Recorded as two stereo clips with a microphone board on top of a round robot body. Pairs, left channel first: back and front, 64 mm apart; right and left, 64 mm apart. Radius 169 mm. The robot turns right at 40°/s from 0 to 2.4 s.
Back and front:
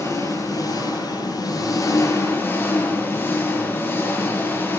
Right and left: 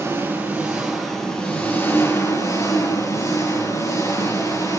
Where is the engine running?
140° left, 9 m; by 4.8 s 120° right, 9 m.